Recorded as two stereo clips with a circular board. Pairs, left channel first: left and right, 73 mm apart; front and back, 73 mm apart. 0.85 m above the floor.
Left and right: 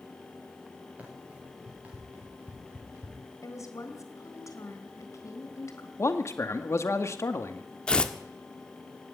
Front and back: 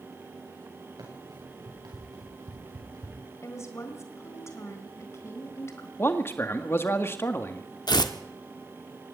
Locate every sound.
1.0 s running footsteps: 155° right, 9 m
3.4 s a woman speaking: 50° left, 4 m
6.0 s a man speaking: 50° left, 1.9 m
7.9 s tearing paper: 15° left, 1.4 m